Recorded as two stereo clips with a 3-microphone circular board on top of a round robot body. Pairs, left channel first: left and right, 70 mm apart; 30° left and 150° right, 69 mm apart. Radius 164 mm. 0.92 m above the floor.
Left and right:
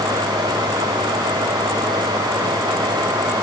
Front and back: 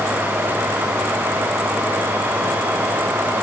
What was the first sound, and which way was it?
Only background noise.